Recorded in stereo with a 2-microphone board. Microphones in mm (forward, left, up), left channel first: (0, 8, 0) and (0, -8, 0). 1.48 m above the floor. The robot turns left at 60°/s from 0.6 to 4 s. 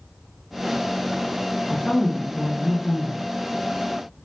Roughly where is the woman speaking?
Behind left.